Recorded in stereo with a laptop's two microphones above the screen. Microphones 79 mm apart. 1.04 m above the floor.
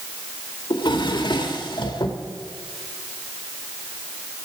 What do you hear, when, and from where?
0.7 s a drawer: 70° left (ahead or behind), 1.4 m